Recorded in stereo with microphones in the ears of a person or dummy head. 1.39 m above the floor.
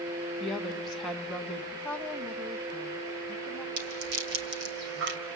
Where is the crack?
No crack in this recording.